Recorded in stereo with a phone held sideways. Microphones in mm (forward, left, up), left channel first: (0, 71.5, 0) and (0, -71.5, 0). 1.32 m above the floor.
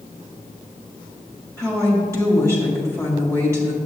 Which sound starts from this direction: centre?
A woman speaking, at 1.6 s.